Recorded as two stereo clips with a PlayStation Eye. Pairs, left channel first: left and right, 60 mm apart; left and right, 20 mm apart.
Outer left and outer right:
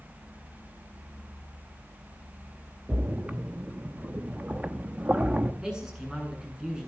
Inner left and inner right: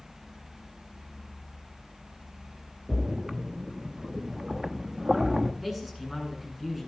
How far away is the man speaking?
About 7.5 m.